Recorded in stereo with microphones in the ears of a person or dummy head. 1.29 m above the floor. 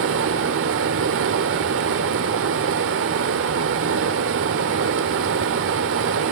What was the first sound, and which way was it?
Running water, 65° right (ahead or behind).